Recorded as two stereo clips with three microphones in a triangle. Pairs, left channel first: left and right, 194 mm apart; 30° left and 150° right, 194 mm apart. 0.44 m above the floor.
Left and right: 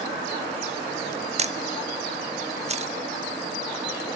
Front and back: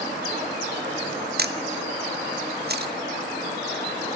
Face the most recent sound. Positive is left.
turn(degrees=-140)